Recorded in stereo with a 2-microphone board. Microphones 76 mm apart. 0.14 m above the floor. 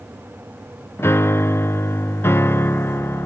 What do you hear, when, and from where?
1.0 s a piano: 30° left (ahead or behind), 0.7 m